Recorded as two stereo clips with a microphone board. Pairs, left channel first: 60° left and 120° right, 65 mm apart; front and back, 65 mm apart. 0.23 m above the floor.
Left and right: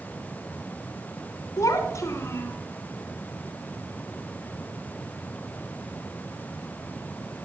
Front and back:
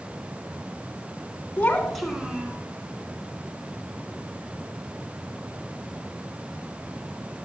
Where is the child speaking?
60° left, 1.2 m; by 2.6 s 115° left, 1.6 m.